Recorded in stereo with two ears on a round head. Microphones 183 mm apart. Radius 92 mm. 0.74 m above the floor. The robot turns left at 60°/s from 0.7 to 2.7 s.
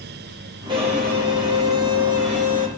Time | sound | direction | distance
0.7 | a violin | 20° right | 9.5 m